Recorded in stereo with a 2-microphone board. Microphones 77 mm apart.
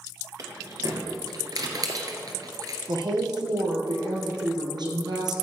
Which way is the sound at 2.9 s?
65° right (ahead or behind).